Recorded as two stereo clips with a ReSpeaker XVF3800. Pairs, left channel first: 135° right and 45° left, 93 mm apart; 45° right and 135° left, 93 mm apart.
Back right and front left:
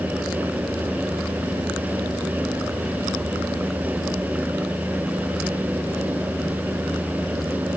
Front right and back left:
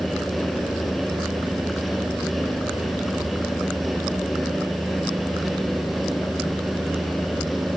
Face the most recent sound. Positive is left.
No sound to turn to.